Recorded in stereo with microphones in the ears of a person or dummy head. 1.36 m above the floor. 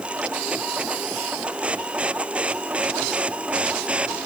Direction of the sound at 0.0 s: 5° right (ahead or behind).